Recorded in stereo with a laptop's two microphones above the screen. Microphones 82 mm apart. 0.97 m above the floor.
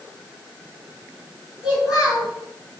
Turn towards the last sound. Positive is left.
turn(degrees=0)  # may be behind; listen again after turning